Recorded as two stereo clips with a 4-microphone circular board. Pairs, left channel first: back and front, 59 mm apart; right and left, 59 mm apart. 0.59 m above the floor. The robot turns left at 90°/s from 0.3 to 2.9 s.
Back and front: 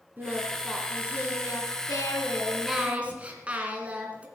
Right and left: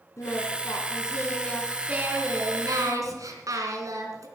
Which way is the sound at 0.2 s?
60° right.